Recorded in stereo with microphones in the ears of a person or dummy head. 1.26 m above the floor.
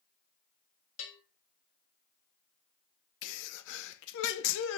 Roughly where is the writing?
No writing in this recording.